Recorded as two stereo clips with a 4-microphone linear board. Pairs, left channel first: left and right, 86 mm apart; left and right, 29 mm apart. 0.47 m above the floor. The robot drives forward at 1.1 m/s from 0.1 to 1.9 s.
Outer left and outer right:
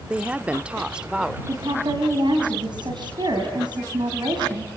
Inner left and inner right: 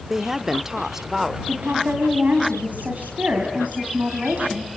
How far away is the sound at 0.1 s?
About 0.8 m.